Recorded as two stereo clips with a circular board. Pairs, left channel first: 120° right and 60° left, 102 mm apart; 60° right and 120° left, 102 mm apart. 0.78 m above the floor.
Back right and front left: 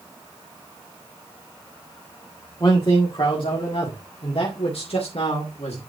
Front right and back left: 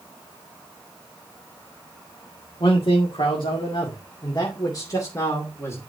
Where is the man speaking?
80° right, 2 m; by 5.8 s 125° right, 2.5 m.